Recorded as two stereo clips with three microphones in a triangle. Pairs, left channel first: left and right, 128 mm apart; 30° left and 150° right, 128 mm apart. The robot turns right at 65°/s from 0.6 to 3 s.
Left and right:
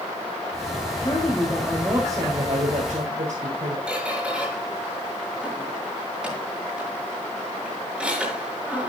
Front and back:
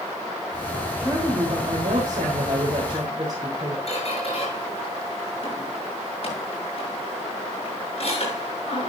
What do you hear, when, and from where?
1.0 s a woman speaking: 135° left, 4 m; by 3.8 s 90° right, 4 m
3.9 s a squeak: 10° right, 6.5 m